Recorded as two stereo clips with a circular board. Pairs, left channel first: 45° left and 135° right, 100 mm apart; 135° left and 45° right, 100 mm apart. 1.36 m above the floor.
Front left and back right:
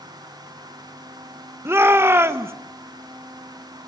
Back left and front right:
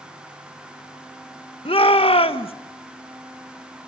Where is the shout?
160° left, 1.4 m.